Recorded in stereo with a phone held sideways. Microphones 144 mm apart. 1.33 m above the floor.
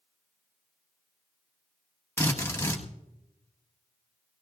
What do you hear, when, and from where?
2.2 s a drill: 20° left (ahead or behind), 1.7 m